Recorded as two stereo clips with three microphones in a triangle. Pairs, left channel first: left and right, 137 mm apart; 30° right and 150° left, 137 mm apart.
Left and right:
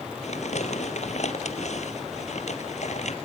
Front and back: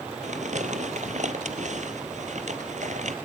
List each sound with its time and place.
0.2 s crumpling: 120° left, 1.5 m